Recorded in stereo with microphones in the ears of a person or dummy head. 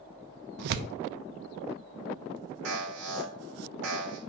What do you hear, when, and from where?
0.6 s tearing paper: 65° right (ahead or behind), 0.6 m
2.6 s an alarm: 75° right (ahead or behind), 3.5 m